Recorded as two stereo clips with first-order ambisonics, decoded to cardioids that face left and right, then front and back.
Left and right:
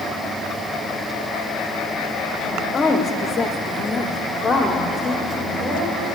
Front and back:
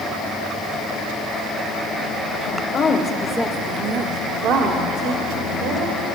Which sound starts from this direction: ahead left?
A woman speaking, at 2.4 s.